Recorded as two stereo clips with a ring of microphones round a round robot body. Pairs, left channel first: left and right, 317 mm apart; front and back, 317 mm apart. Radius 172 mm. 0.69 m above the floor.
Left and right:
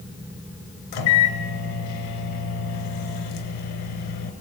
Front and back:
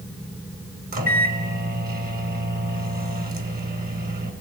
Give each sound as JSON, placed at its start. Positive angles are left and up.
{"t": 0.9, "sound": "a microwave", "azimuth_deg": 120, "distance_m": 3.0}